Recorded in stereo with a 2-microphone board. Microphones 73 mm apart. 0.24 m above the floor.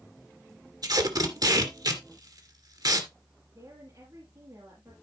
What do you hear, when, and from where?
0.8 s tape being pulled: 70° right (ahead or behind), 2 m
3.5 s a woman speaking: 50° right (ahead or behind), 5.5 m